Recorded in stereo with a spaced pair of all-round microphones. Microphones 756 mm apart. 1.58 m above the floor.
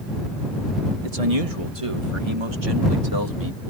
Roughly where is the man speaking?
Right.